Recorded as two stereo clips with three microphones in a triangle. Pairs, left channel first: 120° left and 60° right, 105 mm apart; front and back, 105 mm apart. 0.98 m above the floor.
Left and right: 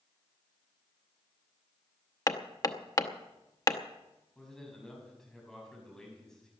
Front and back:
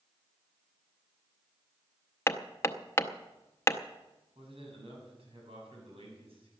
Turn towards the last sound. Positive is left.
turn(degrees=-155)